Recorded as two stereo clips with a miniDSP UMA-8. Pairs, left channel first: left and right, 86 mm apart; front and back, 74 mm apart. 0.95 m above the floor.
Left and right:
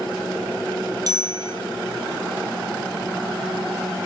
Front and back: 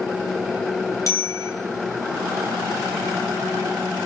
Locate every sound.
1.1 s a bicycle bell: 45° right, 3.5 m